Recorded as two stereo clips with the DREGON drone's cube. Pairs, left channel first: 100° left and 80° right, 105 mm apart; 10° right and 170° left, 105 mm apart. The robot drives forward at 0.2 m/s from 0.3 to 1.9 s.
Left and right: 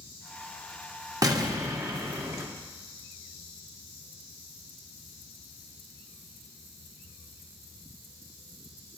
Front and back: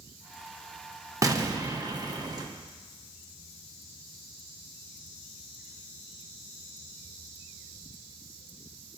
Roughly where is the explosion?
Behind right.